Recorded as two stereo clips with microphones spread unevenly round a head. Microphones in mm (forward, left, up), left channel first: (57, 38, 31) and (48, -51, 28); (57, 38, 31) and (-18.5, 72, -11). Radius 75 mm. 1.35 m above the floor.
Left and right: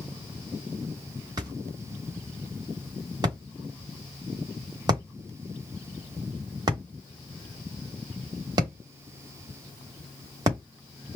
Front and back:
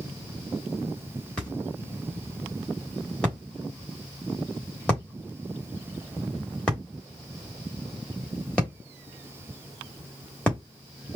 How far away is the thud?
About 1.1 m.